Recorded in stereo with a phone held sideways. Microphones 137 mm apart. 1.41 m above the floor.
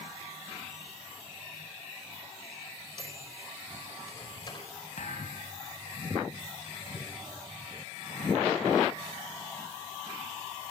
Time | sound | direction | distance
3.0 | a microwave | 35° left (ahead or behind) | 4.5 m
5.0 | a thud | 65° left (ahead or behind) | 3.5 m